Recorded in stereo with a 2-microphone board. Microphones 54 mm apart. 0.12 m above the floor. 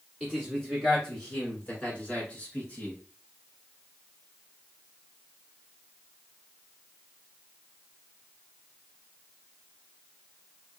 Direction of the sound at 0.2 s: 5° left (ahead or behind).